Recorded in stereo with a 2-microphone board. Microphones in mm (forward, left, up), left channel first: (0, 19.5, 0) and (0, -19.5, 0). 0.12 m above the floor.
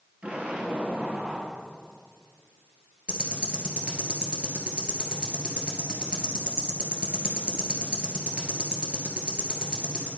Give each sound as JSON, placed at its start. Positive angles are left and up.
{"t": 0.2, "sound": "an explosion", "side_deg": -30, "distance_m": 2.0}
{"t": 3.1, "sound": "ticking", "side_deg": -25, "distance_m": 1.7}